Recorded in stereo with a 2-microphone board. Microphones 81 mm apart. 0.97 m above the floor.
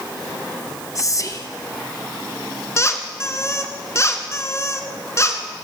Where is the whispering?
40° left (ahead or behind), 1.0 m.